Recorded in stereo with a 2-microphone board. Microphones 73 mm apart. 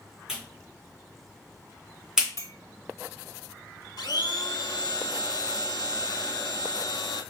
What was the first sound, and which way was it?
A clap, 5° right (ahead or behind).